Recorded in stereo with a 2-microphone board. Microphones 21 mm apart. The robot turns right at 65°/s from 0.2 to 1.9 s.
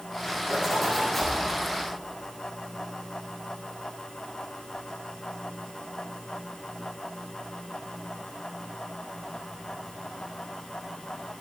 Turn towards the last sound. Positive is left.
turn(degrees=60)